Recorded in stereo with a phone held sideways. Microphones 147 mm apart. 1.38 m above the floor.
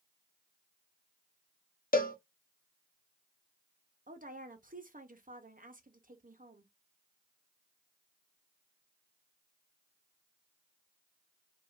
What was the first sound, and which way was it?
A cowbell, 75° left (ahead or behind).